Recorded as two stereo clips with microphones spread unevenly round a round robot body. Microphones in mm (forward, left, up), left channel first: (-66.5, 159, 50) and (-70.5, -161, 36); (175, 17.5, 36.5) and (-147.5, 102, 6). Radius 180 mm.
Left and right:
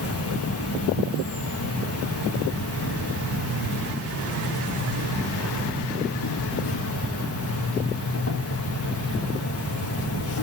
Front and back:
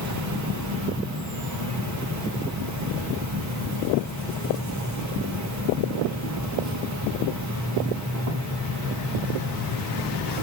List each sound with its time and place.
0.0 s an insect: 135° left, 1.9 m